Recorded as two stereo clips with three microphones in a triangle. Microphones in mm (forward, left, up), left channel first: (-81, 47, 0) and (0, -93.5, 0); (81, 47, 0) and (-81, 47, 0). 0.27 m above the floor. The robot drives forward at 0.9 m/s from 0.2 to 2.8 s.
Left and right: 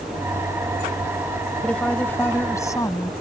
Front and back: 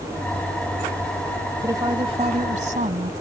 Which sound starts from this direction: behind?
A woman speaking, at 1.6 s.